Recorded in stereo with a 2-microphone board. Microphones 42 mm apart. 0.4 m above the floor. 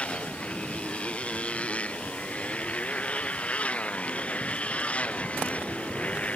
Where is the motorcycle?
30° left (ahead or behind).